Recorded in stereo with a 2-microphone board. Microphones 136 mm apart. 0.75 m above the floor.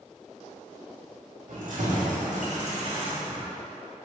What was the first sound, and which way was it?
Keys jangling, 75° right (ahead or behind).